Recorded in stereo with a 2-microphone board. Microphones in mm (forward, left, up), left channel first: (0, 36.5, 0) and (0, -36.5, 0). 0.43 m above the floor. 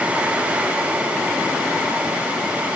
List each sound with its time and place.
Only background noise.